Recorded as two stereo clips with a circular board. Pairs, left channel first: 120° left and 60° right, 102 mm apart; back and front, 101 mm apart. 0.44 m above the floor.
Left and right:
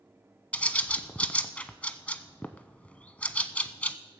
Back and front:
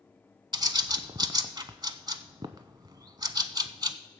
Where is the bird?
45° left, 0.6 m.